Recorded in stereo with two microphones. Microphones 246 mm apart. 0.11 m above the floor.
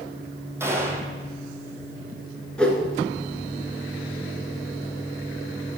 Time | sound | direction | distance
0.6 | a gunshot | 10° right (ahead or behind) | 1.4 m
2.6 | a whoosh | 5° left (ahead or behind) | 1.4 m